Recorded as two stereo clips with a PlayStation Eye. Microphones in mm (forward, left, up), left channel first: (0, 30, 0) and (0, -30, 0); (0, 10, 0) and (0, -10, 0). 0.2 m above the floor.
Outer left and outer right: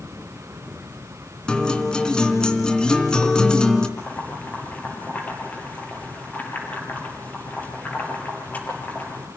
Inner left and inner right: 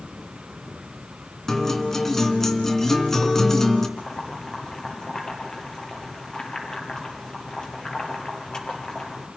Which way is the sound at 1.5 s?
15° left (ahead or behind).